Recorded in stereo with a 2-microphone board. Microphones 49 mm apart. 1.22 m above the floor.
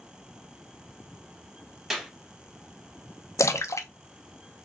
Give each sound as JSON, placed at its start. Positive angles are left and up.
{"t": 1.9, "sound": "a clap", "side_deg": -10, "distance_m": 1.4}
{"t": 3.4, "sound": "a splash", "side_deg": 85, "distance_m": 0.5}